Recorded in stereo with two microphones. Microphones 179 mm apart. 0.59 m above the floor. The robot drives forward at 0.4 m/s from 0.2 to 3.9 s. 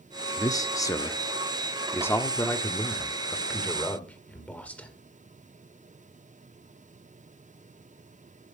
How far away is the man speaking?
About 0.7 m.